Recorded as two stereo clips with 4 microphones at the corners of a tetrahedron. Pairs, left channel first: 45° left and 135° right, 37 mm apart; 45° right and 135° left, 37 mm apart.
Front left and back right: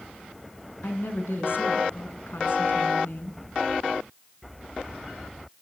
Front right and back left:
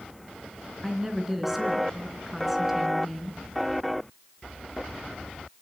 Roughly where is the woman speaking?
Ahead left.